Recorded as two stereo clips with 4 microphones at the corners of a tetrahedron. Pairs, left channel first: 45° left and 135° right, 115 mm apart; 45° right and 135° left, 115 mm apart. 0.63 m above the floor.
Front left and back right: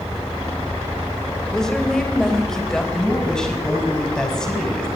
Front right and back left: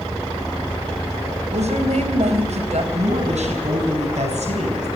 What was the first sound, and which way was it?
A woman speaking, 130° left.